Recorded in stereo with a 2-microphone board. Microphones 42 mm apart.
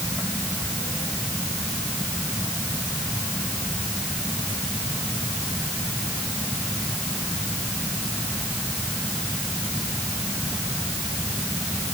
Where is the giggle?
I don't hear a giggle.